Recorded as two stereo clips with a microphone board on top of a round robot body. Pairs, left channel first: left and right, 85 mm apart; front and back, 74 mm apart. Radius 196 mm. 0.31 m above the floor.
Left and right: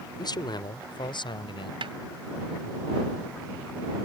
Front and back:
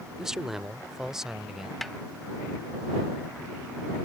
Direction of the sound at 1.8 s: 90° right.